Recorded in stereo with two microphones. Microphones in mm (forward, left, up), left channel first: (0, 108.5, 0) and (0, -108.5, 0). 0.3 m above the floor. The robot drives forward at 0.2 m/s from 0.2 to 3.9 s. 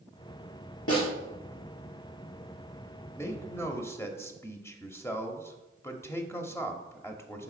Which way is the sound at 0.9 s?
75° left (ahead or behind).